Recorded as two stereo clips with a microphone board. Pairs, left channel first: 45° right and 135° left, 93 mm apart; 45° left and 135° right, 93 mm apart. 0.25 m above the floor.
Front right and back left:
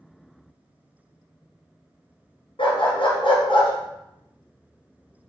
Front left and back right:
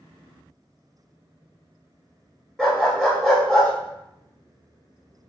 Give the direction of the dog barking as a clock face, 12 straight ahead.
1 o'clock.